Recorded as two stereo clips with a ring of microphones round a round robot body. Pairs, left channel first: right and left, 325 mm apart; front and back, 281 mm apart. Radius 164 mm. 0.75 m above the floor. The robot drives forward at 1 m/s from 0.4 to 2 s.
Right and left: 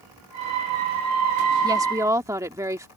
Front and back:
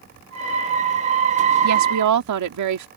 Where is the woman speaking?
165° left; by 2.9 s 170° left.